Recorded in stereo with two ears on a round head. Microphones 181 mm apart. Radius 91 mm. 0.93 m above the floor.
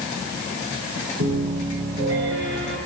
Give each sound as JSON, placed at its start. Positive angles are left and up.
{"t": 1.2, "sound": "a piano", "side_deg": -65, "distance_m": 10.0}